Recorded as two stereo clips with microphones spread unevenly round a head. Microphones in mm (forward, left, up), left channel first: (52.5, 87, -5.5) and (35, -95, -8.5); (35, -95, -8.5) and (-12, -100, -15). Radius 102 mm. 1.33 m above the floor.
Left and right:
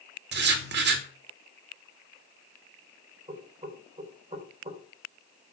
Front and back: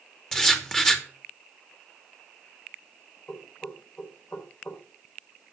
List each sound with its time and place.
0.3 s writing: 75° right, 3 m
3.3 s knocking: 35° right, 4.5 m